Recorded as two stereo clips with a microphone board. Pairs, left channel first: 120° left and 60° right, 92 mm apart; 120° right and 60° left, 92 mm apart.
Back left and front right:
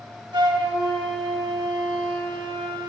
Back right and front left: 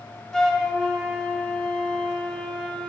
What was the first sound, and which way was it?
A flute, 35° right.